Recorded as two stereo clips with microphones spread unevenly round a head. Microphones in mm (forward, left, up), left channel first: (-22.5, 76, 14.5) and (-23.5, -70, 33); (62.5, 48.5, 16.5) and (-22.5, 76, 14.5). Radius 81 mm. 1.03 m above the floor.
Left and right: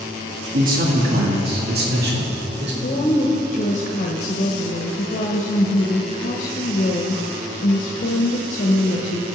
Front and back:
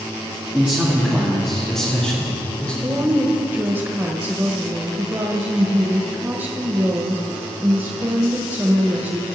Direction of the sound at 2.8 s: 105° left.